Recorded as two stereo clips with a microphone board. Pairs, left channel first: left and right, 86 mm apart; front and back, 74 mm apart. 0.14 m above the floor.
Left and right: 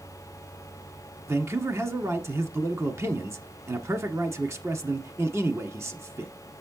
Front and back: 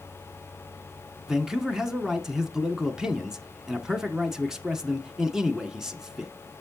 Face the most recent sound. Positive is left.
turn(degrees=-105)